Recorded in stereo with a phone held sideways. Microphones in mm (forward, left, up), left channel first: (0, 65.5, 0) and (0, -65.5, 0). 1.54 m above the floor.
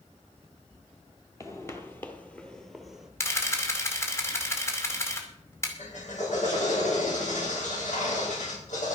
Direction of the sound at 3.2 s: 20° left (ahead or behind).